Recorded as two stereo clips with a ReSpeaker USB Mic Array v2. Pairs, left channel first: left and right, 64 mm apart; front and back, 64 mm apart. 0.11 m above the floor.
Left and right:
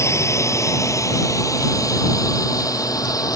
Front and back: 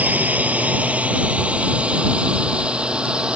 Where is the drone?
120° left; by 3.4 s 105° left.